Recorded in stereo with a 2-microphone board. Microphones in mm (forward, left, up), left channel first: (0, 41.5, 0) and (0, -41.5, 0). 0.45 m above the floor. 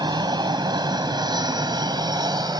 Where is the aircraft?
60° right (ahead or behind); by 2.6 s 55° right (ahead or behind).